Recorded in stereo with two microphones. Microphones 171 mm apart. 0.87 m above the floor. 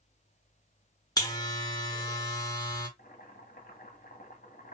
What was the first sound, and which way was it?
A buzzer, 20° left (ahead or behind).